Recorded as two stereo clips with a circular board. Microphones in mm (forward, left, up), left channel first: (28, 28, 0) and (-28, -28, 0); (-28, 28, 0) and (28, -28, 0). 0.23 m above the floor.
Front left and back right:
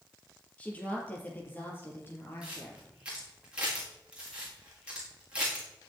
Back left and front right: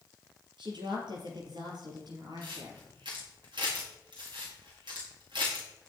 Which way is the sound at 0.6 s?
30° right.